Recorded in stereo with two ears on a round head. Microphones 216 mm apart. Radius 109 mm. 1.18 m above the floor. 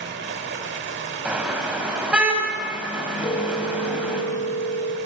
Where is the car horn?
5° right (ahead or behind), 4 m.